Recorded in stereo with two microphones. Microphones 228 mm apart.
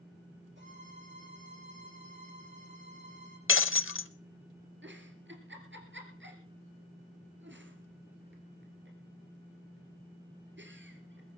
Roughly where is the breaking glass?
Left.